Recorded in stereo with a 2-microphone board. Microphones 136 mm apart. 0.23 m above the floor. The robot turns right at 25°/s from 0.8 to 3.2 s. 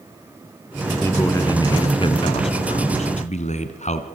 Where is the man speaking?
20° left, 2 m; by 4.1 s 75° left, 2 m.